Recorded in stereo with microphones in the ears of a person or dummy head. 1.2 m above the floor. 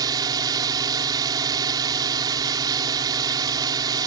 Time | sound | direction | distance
0.0 | a drone | 25° right (ahead or behind) | ?